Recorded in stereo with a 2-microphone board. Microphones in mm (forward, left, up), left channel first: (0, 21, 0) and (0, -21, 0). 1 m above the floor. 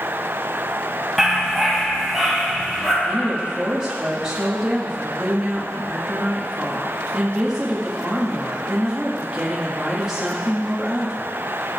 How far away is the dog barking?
About 3 m.